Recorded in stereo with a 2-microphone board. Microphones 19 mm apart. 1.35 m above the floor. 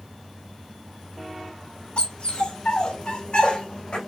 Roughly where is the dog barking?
Left.